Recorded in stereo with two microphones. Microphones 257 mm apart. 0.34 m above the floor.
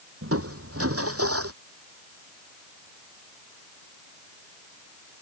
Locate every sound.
0.2 s crushing: 60° right (ahead or behind)